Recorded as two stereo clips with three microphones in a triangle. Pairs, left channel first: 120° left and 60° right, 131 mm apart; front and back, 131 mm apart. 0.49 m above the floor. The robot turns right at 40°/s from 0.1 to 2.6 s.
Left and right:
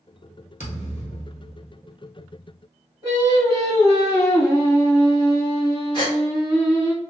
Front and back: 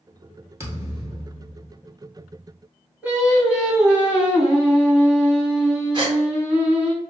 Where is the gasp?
150° left, 1.0 m.